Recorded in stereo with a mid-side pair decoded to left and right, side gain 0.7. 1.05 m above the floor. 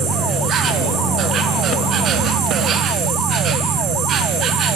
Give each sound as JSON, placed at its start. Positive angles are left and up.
{"t": 0.0, "sound": "an insect", "azimuth_deg": -45, "distance_m": 4.0}